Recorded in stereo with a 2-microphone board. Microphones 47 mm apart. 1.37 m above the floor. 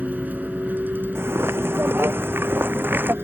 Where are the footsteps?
60° right (ahead or behind); by 3.1 s 45° right (ahead or behind).